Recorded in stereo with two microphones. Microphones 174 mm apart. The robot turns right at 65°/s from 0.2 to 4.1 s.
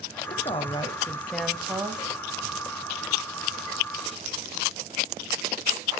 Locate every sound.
0.3 s a woman speaking: 105° left, 1.1 m; by 2.0 s 140° right, 1.1 m